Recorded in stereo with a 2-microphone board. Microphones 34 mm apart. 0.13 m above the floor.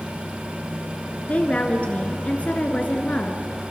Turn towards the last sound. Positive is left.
turn(degrees=40)  # may be behind; listen again after turning